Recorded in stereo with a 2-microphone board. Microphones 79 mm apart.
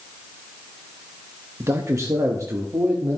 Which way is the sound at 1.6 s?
35° right (ahead or behind).